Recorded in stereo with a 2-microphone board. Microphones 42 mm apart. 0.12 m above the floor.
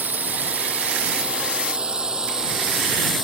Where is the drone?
45° right (ahead or behind); by 3.2 s 10° right (ahead or behind).